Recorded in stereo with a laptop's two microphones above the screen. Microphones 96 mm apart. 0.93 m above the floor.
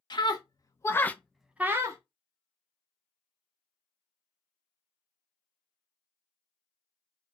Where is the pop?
No pop in this recording.